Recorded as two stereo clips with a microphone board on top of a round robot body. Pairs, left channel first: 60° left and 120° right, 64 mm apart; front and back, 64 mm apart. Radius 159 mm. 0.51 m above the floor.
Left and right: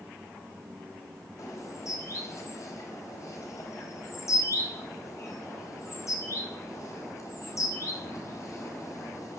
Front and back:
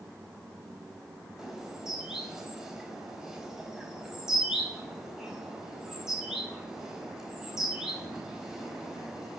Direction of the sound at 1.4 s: 95° left.